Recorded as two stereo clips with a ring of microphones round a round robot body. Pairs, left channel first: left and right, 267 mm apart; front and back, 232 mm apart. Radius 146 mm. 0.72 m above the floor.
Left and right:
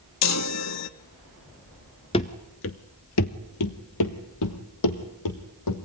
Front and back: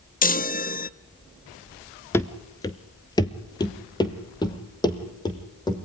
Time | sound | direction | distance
0.2 | a chime | 55° left | 0.5 m
2.1 | running footsteps | 60° left | 0.7 m